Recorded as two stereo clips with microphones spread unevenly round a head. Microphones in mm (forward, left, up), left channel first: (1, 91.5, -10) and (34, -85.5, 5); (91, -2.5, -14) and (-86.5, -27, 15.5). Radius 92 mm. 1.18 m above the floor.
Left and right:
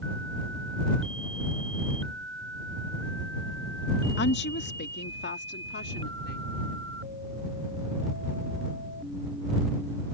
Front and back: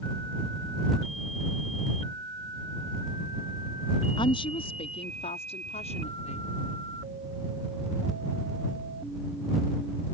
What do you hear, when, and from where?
4.2 s a woman speaking: 75° left; by 6.5 s 65° left